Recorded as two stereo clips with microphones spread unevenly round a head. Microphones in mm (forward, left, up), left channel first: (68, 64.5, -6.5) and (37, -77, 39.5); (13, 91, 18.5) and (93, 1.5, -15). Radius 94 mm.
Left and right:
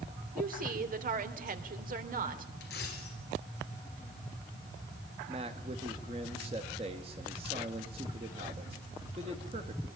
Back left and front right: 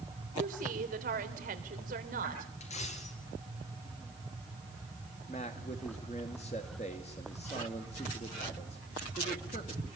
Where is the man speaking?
170° right, 2 m.